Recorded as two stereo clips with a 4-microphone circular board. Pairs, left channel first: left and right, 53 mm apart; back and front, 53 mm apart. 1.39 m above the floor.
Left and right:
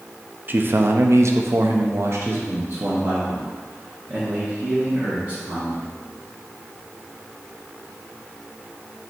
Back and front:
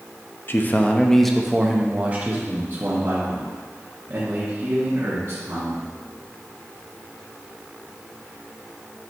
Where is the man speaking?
140° right, 0.6 m; by 5.9 s 30° right, 2.5 m.